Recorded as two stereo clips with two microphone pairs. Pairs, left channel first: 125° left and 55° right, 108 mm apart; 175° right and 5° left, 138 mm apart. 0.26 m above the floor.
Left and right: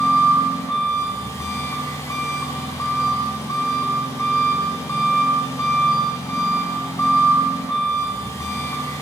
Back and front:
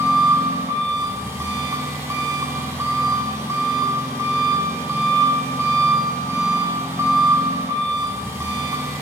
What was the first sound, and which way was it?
An engine running, 70° left.